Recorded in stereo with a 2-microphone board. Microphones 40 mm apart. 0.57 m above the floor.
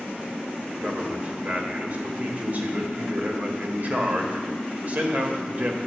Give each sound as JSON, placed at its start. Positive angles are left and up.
{"t": 0.7, "sound": "a man speaking", "side_deg": -45, "distance_m": 1.9}